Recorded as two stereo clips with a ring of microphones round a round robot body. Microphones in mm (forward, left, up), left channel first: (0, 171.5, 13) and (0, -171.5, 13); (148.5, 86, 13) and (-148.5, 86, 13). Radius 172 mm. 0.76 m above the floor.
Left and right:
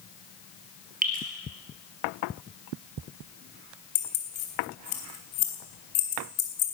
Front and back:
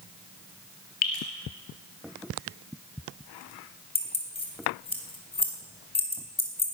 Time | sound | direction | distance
1.0 | dripping | 25° right | 3 m
4.0 | keys jangling | 70° left | 3.5 m